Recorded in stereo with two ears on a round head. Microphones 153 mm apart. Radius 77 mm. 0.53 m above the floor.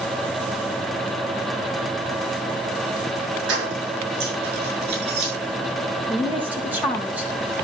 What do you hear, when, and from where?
3.5 s keys jangling: 80° right, 6 m; by 5.3 s 65° right (ahead or behind), 5.5 m
6.1 s a woman speaking: 10° right (ahead or behind), 3 m